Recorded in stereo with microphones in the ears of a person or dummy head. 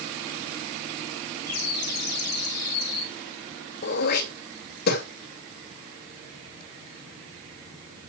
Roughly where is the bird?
Left.